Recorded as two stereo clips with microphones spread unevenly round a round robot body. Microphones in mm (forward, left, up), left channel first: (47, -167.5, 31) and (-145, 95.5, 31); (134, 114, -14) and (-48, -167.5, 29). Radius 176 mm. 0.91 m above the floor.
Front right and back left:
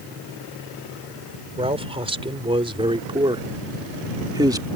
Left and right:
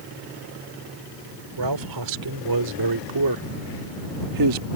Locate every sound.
1.6 s a man speaking: 160° right; by 4.7 s 155° right